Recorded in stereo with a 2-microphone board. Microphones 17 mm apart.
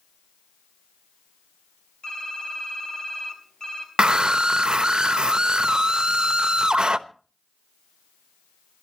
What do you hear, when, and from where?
2.0 s typing on a keyboard: 45° left (ahead or behind), 4.5 m
4.0 s a scream: 60° right (ahead or behind), 1.0 m